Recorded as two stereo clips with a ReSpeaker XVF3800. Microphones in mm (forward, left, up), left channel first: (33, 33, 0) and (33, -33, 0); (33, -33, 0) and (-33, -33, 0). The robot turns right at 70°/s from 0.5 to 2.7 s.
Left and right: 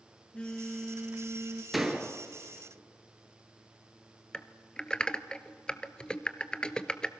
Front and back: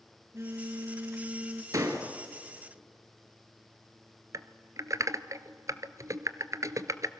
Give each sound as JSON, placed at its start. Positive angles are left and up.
{"t": 0.3, "sound": "a phone buzzing", "azimuth_deg": 160, "distance_m": 1.3}
{"t": 1.7, "sound": "a door slam", "azimuth_deg": 180, "distance_m": 2.0}
{"t": 4.3, "sound": "typing on a keyboard", "azimuth_deg": 165, "distance_m": 0.8}